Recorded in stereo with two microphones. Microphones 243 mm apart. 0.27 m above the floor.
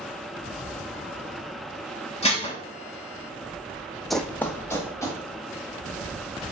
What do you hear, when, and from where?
2.2 s dishes clattering: 25° left (ahead or behind), 1.1 m
4.1 s running footsteps: centre (ahead or behind), 0.6 m; by 5.2 s 10° left (ahead or behind), 2 m